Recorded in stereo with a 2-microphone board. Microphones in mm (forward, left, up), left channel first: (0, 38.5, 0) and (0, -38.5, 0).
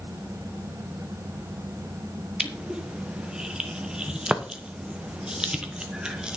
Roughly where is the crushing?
Centre.